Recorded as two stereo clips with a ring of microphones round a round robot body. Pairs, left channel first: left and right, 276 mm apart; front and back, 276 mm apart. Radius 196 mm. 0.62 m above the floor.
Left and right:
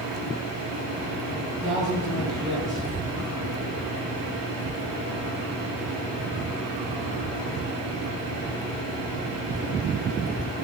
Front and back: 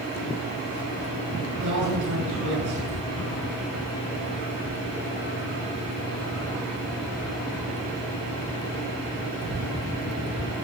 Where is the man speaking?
Straight behind, 9 m.